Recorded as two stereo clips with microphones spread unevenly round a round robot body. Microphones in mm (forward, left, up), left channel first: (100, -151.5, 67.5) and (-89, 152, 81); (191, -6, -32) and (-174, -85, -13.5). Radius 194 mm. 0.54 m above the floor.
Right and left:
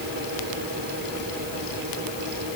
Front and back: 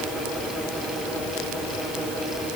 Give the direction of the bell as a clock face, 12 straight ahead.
I don't hear a bell.